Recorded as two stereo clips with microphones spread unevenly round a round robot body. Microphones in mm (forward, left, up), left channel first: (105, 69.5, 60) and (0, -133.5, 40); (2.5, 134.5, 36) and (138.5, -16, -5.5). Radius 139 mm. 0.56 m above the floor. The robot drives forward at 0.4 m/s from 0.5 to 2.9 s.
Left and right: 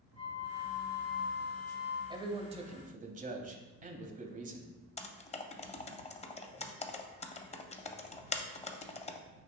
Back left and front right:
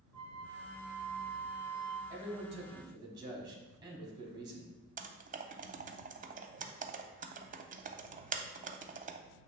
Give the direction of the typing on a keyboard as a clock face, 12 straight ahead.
12 o'clock.